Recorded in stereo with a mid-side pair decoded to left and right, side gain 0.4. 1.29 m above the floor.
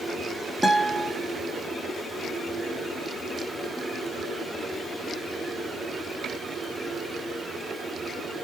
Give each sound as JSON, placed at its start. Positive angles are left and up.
{"t": 0.6, "sound": "a guitar", "azimuth_deg": 15, "distance_m": 3.0}